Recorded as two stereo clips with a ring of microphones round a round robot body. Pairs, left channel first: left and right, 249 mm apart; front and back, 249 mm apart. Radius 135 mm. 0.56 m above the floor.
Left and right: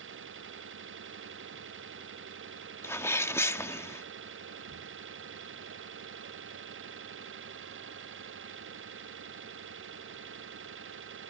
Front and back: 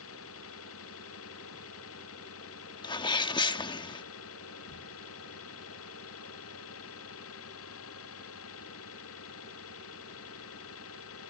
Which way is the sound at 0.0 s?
45° right.